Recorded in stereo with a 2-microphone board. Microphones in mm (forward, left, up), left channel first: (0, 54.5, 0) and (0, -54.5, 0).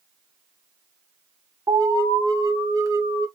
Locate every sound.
1.7 s an alarm: 35° right (ahead or behind), 2.5 m